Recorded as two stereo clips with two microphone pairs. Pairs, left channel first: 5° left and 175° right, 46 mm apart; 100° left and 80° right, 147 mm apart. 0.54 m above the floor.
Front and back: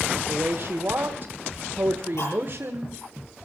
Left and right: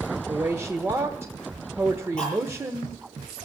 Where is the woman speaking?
150° right, 1.3 m.